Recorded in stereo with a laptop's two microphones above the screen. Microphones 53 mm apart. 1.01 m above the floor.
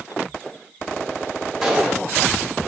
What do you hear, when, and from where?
1.6 s a gunshot: 5° right (ahead or behind), 1.3 m